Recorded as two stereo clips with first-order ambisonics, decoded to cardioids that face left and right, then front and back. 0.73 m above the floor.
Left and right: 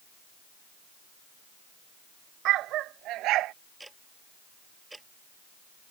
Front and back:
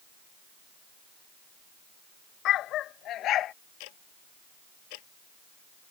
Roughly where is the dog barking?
Ahead right.